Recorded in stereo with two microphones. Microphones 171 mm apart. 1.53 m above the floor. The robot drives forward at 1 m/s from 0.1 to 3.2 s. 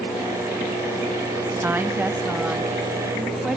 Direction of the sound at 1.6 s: 15° right (ahead or behind).